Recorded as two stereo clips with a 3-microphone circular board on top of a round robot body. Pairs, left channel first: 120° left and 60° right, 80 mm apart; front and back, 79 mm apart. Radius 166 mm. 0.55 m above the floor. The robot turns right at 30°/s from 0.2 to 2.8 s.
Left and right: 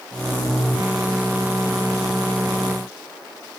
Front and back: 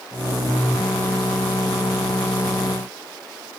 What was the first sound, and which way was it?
Only background noise.